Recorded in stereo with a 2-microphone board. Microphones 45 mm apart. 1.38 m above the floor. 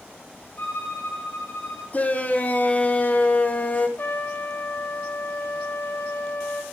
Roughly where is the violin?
Left.